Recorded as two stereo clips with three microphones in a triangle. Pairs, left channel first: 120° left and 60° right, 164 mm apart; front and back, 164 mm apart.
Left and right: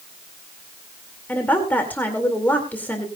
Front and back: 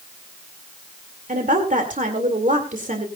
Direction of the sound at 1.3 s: 165° right.